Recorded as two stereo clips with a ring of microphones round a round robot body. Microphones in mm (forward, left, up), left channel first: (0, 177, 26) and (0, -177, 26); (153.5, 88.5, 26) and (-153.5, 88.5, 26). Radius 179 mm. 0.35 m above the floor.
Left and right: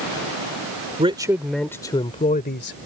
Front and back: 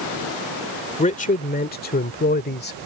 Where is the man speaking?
35° right; by 2.8 s 45° left.